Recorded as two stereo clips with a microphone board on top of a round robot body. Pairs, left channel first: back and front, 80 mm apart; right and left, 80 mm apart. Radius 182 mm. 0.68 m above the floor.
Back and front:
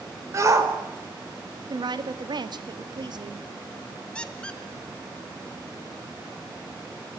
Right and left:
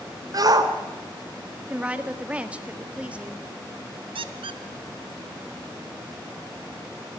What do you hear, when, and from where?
0.3 s a shout: 50° left, 3.5 m
1.7 s a woman speaking: 15° left, 1.8 m
4.2 s a squeak: 100° left, 0.7 m